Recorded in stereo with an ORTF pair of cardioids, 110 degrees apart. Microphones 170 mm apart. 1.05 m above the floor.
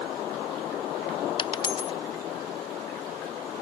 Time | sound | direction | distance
1.4 | a dropped coin | 30° left | ?